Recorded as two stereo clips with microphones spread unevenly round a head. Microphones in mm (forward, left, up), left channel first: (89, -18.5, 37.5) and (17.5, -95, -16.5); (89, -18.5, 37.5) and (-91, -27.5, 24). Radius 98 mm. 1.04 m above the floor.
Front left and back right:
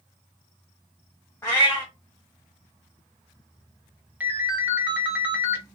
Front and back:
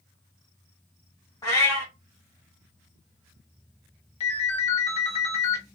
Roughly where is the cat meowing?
Ahead left.